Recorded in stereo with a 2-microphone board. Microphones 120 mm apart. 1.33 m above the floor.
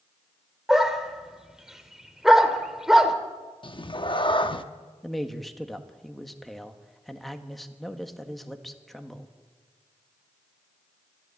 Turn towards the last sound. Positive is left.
turn(degrees=0)  # may be behind; listen again after turning